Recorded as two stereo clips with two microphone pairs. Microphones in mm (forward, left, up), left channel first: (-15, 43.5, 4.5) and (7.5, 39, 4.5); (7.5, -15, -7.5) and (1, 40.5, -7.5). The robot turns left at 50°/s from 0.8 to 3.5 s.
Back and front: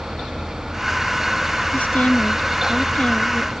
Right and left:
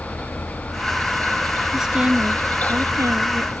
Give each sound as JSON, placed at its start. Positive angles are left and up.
{"t": 1.7, "sound": "a woman speaking", "azimuth_deg": 180}